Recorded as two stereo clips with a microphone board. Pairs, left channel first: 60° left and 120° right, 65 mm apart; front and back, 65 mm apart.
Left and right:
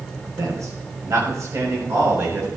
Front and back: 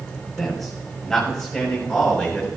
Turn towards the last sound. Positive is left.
turn(degrees=-75)